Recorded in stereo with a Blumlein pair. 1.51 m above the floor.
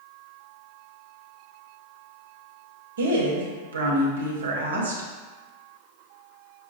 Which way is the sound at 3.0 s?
65° right.